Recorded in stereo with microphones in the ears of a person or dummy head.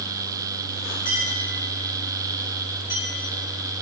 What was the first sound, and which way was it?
A clink, 30° left (ahead or behind).